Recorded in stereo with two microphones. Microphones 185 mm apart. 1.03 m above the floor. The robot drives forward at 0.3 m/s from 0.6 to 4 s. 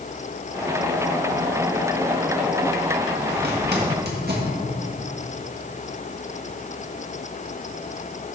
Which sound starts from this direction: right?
A zipper, at 3.3 s.